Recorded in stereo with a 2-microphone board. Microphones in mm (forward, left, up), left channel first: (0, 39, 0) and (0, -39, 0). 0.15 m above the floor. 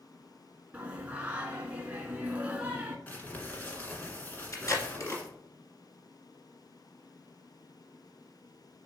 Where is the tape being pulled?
45° left (ahead or behind), 1.8 m.